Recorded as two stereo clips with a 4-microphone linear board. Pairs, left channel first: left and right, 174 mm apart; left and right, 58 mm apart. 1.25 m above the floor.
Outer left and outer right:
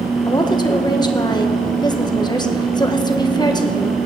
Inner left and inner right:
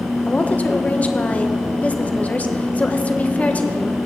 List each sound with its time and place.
0.3 s a woman speaking: 25° left (ahead or behind), 1.2 m